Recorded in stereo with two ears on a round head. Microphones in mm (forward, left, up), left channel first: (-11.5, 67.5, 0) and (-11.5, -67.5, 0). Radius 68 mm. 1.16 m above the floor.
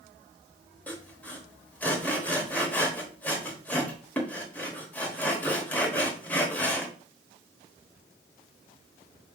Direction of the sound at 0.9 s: 10° left (ahead or behind).